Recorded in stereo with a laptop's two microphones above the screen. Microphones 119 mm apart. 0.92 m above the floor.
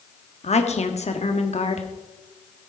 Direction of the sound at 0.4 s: 65° left (ahead or behind).